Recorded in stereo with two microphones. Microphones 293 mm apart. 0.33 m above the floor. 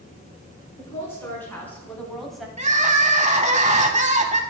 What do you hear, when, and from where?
0.8 s a woman speaking: 10° left (ahead or behind), 4 m; by 2.5 s centre (ahead or behind), 1.7 m
2.6 s crying: 25° right (ahead or behind), 0.7 m